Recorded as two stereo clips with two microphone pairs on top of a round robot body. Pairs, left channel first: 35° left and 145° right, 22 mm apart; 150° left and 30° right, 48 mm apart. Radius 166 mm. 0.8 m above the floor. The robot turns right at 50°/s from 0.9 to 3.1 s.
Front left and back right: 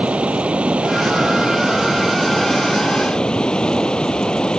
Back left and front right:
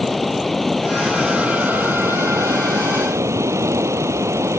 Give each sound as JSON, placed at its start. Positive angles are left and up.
{"t": 0.0, "sound": "running water", "azimuth_deg": -125}